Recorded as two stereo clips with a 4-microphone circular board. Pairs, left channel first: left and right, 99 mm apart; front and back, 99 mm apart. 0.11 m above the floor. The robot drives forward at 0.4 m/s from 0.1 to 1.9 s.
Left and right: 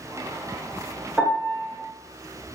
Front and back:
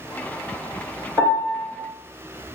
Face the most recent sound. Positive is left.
turn(degrees=-165)